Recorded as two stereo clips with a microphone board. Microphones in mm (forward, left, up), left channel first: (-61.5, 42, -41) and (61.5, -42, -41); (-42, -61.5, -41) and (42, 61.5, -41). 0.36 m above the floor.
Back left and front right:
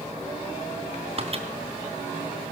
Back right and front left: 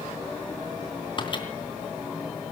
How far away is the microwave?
About 2.5 m.